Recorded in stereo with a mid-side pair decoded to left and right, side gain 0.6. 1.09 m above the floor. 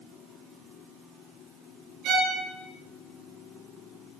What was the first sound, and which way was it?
A violin, 65° right.